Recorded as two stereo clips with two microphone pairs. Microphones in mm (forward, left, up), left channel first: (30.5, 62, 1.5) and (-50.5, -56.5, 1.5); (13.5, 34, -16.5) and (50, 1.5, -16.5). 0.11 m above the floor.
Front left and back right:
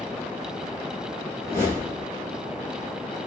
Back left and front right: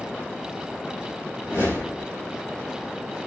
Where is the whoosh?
125° left, 2.5 m.